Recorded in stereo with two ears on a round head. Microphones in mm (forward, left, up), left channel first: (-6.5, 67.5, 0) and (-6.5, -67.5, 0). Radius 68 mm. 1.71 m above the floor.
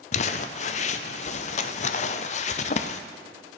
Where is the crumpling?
50° left (ahead or behind), 0.5 m.